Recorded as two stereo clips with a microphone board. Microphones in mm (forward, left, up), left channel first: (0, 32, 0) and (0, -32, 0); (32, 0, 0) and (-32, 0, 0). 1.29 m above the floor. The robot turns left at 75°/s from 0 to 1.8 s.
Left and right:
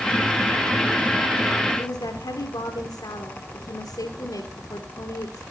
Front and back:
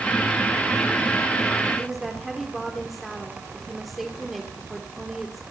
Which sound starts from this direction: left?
A woman speaking, at 1.8 s.